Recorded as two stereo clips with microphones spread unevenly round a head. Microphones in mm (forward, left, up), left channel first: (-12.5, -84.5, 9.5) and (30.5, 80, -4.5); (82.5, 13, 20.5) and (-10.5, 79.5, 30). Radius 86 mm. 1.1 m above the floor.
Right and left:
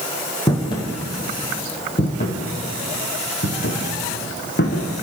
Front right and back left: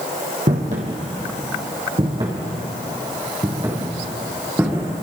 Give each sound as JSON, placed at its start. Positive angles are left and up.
{"t": 0.5, "sound": "footsteps", "azimuth_deg": -170, "distance_m": 3.0}